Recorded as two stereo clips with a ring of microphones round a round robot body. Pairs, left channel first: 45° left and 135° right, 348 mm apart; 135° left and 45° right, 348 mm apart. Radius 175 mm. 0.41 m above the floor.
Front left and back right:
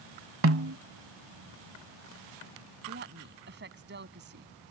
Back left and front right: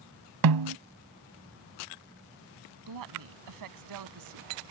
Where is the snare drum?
80° right.